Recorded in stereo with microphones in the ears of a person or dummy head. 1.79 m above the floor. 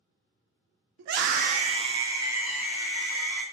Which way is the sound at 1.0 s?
75° right (ahead or behind).